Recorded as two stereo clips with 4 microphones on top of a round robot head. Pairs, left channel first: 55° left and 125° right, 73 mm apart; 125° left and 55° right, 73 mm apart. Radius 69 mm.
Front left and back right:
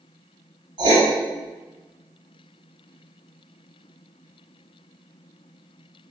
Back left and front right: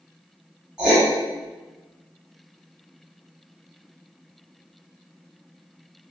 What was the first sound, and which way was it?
Writing, 135° right.